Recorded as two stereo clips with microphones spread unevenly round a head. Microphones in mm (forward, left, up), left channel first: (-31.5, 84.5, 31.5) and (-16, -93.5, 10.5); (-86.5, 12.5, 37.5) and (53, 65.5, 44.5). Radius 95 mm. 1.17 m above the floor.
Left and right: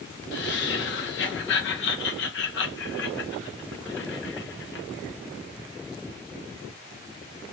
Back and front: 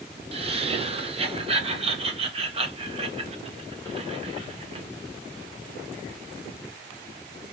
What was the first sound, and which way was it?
Laughter, 70° left.